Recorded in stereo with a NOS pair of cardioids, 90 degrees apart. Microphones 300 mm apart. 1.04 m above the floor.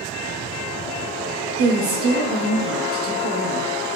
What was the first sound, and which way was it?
A woman speaking, 50° right.